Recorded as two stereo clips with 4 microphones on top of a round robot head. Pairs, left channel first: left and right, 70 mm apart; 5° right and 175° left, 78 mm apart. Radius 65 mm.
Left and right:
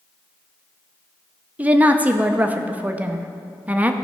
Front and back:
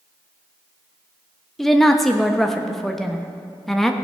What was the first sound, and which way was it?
A woman speaking, 90° right.